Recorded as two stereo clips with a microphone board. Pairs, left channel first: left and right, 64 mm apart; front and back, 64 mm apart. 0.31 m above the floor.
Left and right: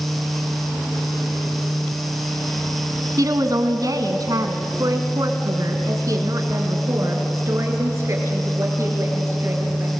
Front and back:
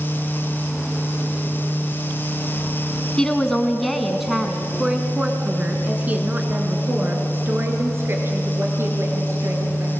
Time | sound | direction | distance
3.2 | a woman speaking | 75° right | 2.5 m